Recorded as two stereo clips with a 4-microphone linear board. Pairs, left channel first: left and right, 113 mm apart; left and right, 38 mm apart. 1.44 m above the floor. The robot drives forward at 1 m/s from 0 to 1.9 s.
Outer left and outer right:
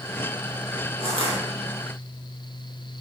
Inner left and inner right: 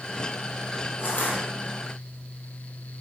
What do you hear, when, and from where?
1.0 s crushing: 55° left (ahead or behind), 3 m; by 1.4 s 50° left (ahead or behind), 3 m